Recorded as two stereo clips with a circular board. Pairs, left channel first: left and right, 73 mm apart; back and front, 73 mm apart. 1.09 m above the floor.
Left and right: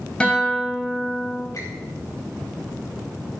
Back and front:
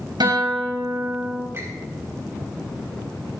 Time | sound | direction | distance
0.2 | a guitar | 10° left | 4 m
1.5 | a squeak | 55° left | 4 m